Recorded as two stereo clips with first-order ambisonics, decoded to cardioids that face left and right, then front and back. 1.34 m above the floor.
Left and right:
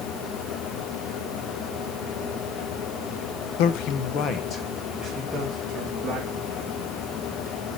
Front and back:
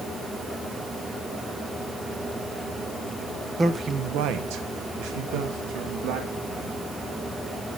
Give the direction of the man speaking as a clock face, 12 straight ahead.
9 o'clock.